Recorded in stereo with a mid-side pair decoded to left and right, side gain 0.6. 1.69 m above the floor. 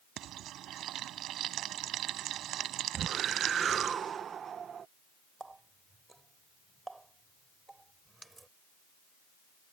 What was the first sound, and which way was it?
Frying, 55° right.